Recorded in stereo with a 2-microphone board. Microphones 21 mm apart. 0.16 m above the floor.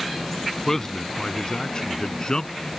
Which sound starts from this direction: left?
A man speaking, at 0.7 s.